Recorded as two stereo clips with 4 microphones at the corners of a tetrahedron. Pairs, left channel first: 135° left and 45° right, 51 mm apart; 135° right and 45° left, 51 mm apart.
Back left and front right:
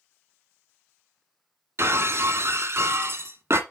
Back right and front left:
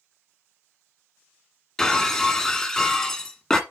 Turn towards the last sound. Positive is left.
turn(degrees=-55)